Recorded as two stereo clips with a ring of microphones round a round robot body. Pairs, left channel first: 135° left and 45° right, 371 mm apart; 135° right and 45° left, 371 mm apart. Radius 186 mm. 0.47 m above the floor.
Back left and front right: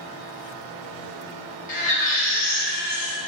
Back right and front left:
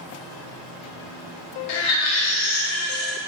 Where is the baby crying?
155° right, 0.8 m.